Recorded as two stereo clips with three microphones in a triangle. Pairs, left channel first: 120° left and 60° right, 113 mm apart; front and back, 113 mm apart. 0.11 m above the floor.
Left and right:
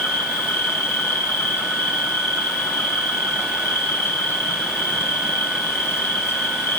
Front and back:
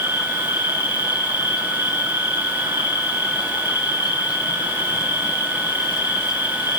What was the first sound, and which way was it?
An insect, 50° left.